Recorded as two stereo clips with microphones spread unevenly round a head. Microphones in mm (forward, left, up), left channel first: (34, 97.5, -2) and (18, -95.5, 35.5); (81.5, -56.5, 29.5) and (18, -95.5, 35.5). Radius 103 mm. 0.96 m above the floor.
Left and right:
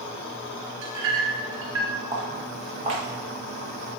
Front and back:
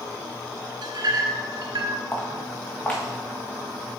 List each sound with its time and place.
0.8 s a clink: 125° right, 1.3 m
2.1 s footsteps: 35° right, 2.5 m; by 4.0 s 55° right, 4.5 m